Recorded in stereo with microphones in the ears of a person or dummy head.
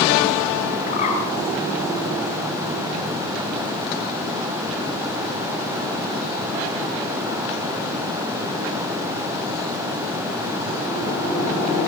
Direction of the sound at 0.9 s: 40° left (ahead or behind).